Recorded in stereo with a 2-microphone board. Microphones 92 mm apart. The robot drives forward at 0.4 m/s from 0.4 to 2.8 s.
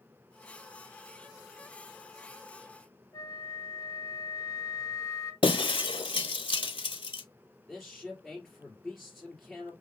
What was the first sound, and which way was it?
A flute, 40° left (ahead or behind).